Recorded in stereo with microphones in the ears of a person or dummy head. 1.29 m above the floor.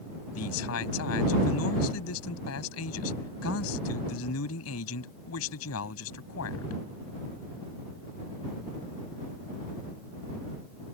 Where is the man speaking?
85° left.